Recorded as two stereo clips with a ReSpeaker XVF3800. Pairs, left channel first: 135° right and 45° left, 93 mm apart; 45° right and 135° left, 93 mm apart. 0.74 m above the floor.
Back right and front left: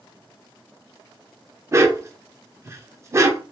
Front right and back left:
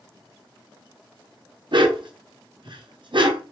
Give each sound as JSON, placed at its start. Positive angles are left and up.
{"t": 1.7, "sound": "a dog barking", "azimuth_deg": 105, "distance_m": 0.7}